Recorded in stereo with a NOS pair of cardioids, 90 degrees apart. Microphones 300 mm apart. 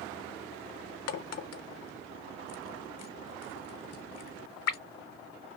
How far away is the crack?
About 0.9 m.